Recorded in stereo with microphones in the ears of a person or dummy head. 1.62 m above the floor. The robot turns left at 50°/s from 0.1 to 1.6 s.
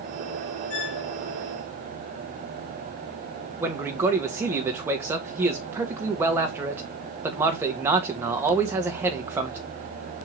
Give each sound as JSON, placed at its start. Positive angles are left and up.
{"t": 0.7, "sound": "a squeak", "side_deg": 70, "distance_m": 2.5}
{"t": 3.6, "sound": "a man speaking", "side_deg": -15, "distance_m": 1.2}